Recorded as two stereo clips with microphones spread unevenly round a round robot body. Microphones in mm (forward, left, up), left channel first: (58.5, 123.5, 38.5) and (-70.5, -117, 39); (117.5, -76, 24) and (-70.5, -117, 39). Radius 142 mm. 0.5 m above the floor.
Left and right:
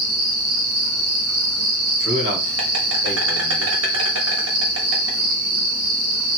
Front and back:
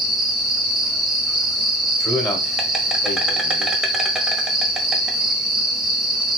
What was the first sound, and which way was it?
An insect, 80° right.